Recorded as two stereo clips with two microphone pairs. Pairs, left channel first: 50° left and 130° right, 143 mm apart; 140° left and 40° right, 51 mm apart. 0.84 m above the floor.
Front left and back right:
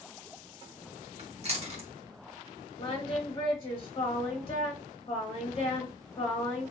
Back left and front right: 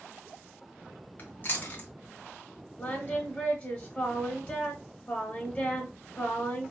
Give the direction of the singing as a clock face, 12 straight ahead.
9 o'clock.